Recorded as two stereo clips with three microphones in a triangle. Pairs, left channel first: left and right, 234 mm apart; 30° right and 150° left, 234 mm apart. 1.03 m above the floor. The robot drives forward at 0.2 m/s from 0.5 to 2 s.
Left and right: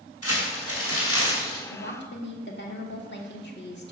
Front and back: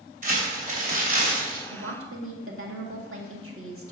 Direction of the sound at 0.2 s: 95° left.